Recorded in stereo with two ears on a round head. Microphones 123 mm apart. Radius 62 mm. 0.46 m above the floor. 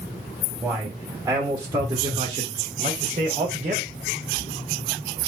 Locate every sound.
0.6 s a man speaking: 10° right (ahead or behind), 1.6 m; by 3.9 s 45° right (ahead or behind), 1.8 m